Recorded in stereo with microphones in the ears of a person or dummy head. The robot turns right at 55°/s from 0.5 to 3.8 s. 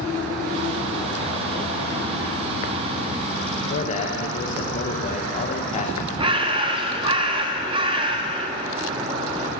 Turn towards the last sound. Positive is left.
turn(degrees=-25)  # may be behind; listen again after turning